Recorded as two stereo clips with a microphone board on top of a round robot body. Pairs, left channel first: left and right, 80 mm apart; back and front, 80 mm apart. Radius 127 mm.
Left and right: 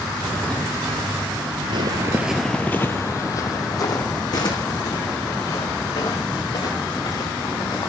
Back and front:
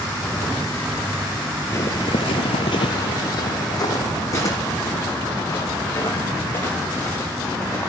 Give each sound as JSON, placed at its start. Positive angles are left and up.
{"t": 1.7, "sound": "footsteps", "azimuth_deg": -120, "distance_m": 0.8}